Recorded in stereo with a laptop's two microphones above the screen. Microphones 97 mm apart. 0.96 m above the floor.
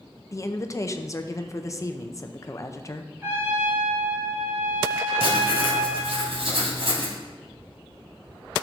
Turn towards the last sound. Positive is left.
turn(degrees=-70)  # may be behind; listen again after turning